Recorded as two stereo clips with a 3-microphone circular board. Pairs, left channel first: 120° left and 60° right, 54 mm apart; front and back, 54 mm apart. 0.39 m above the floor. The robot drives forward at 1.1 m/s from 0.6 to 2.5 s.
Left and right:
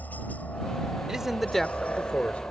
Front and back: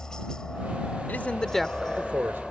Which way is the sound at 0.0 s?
75° left.